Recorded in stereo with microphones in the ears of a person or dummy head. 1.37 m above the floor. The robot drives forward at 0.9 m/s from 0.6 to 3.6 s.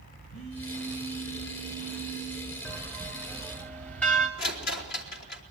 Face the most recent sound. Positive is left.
turn(degrees=60)  # may be behind; listen again after turning